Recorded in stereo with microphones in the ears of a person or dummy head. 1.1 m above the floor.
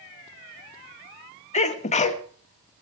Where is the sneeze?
35° left (ahead or behind), 1.6 m.